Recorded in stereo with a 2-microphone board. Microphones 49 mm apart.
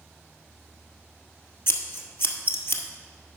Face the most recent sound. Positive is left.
turn(degrees=50)  # may be behind; listen again after turning